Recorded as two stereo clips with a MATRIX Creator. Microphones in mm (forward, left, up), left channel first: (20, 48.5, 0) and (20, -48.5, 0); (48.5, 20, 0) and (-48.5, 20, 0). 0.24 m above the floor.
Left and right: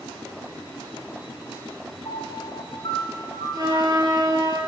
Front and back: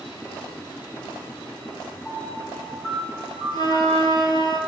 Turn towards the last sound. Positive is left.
turn(degrees=-40)